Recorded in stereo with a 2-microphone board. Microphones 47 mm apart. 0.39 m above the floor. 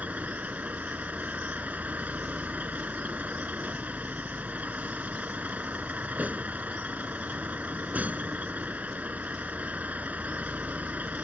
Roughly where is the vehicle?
Right.